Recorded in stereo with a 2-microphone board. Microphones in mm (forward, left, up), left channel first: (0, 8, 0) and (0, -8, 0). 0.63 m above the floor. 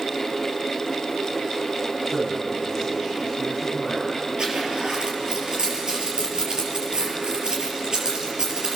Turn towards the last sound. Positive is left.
turn(degrees=-50)  # may be behind; listen again after turning